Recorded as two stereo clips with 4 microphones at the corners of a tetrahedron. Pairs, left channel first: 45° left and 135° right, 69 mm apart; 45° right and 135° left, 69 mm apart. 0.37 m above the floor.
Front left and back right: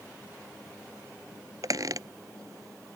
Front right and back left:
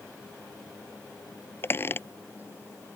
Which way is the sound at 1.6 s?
100° right.